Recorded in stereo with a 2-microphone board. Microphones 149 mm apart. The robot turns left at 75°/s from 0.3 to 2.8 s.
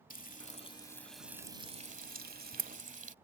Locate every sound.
0.1 s frying: 65° left (ahead or behind); by 3.1 s 55° right (ahead or behind)